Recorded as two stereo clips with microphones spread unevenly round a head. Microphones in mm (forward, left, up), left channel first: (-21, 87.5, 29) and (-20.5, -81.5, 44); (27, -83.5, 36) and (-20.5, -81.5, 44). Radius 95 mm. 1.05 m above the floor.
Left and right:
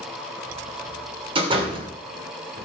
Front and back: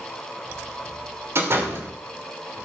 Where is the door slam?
150° right, 3 m.